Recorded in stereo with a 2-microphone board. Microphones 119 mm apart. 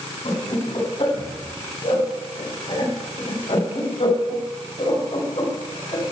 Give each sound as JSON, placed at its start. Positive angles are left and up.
{"t": 0.2, "sound": "laughter", "side_deg": 60, "distance_m": 9.0}